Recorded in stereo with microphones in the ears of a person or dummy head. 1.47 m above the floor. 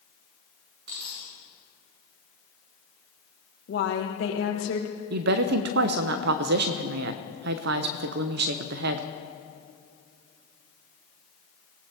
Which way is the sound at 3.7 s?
65° left (ahead or behind).